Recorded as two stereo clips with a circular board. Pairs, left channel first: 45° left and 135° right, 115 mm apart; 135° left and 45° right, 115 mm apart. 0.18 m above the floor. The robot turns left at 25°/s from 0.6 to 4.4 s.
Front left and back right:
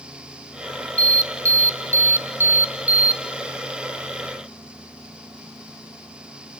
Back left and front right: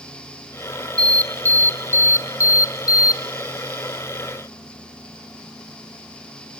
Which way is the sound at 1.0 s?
155° right.